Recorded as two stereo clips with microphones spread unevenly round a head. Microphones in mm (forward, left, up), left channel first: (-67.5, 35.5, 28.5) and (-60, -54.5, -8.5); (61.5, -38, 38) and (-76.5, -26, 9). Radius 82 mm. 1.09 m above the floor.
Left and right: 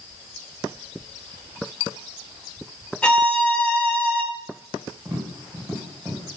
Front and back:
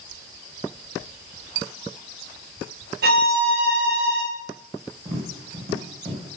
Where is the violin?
170° left, 2 m.